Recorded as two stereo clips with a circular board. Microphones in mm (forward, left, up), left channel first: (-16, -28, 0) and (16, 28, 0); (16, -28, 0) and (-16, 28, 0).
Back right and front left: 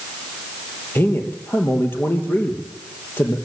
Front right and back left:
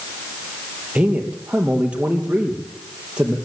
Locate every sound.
0.9 s a man speaking: 170° right, 3 m